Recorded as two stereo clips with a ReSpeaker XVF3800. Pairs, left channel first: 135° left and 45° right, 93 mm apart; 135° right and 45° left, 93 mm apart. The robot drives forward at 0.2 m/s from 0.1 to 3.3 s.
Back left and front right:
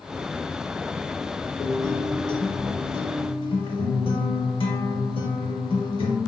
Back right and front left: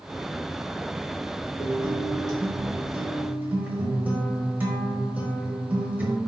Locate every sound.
1.6 s a guitar: 85° left, 0.6 m; by 6.2 s 115° left, 0.7 m